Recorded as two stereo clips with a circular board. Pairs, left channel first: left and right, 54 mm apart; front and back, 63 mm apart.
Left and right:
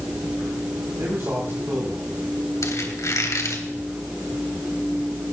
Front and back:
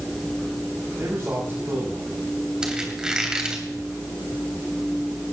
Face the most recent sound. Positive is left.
turn(degrees=100)